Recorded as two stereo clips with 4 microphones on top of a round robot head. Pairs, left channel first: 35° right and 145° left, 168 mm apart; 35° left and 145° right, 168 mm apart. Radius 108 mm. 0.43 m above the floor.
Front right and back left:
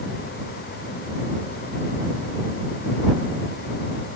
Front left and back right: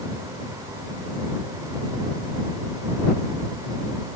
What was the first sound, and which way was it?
Only background noise.